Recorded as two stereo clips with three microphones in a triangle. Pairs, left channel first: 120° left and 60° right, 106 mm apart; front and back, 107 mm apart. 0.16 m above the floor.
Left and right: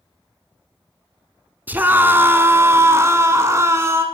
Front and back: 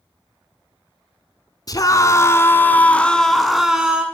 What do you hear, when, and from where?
1.7 s a scream: straight ahead, 1.3 m; by 4.0 s 105° right, 1.3 m